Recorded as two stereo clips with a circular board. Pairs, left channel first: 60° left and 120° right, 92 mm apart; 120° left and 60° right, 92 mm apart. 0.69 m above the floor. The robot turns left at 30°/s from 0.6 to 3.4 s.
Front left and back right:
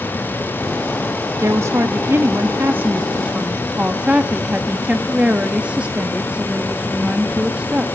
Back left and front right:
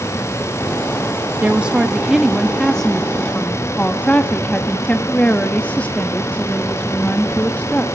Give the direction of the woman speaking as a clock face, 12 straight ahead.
4 o'clock.